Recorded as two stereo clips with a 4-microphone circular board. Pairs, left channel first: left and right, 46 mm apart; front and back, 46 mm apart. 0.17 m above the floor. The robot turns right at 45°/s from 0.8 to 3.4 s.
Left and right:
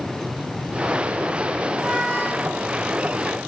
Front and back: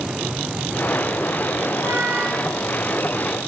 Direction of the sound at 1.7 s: 175° left.